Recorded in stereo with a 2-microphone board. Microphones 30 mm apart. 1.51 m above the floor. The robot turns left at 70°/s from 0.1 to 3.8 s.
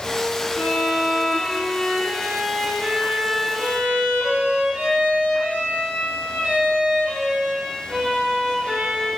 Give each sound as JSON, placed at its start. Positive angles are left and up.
{"t": 0.6, "sound": "a violin", "azimuth_deg": 95, "distance_m": 0.7}